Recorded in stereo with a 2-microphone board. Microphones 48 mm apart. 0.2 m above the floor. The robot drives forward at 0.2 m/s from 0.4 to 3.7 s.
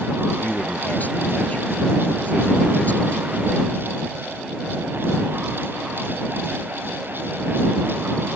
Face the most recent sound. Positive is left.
turn(degrees=35)  # may be behind; listen again after turning